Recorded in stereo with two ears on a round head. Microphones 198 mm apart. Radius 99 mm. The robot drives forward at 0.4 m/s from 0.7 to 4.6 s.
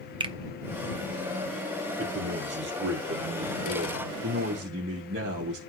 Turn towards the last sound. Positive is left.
turn(degrees=-55)  # may be behind; listen again after turning